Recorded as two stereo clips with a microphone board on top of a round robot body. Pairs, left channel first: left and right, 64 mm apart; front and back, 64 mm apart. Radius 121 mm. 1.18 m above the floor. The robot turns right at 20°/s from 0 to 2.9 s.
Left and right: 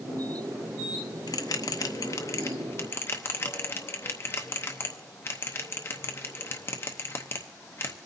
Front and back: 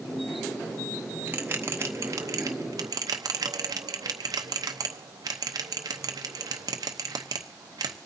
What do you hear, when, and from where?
1.3 s a bell: 115° left, 0.8 m; by 8.0 s 145° left, 0.8 m